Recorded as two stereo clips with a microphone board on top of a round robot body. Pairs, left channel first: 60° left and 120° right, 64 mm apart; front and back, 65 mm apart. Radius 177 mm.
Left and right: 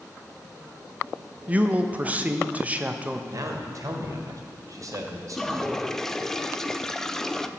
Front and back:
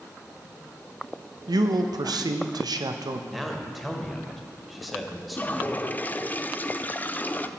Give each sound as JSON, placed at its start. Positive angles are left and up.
{"t": 1.5, "sound": "a man speaking", "azimuth_deg": 170, "distance_m": 0.8}
{"t": 3.3, "sound": "a man speaking", "azimuth_deg": -90, "distance_m": 1.7}
{"t": 5.3, "sound": "a toilet flushing", "azimuth_deg": -15, "distance_m": 0.7}